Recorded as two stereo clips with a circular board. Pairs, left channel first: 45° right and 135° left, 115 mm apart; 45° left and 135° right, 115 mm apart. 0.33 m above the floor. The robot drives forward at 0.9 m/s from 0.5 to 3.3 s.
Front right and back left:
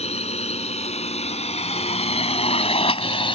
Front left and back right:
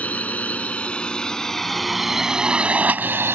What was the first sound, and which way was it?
A drone, 30° right.